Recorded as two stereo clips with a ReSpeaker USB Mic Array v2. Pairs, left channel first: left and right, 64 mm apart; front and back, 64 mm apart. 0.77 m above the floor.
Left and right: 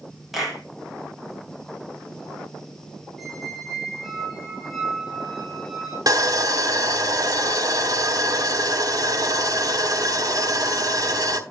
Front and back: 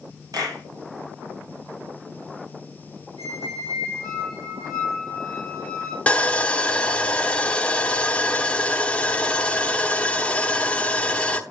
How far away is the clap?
About 5 m.